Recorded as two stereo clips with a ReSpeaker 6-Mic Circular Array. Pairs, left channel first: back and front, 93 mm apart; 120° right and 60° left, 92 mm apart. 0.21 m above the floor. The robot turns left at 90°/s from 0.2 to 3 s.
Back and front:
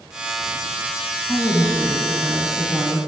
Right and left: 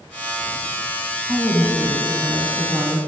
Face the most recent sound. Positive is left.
turn(degrees=-10)